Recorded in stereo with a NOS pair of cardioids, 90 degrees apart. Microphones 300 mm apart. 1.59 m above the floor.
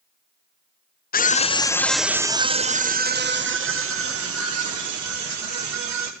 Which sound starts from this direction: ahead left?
A scream, at 1.1 s.